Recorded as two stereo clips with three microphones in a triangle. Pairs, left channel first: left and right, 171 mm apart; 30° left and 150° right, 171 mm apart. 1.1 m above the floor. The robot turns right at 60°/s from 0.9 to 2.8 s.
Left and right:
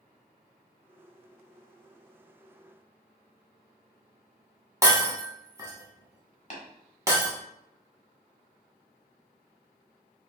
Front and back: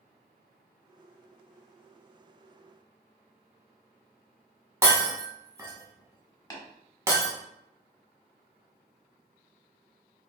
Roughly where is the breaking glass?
Behind right.